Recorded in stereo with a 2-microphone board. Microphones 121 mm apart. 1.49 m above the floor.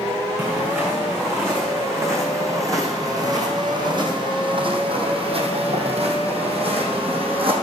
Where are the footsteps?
15° right (ahead or behind), 5 m; by 7.5 s 50° right (ahead or behind), 3 m.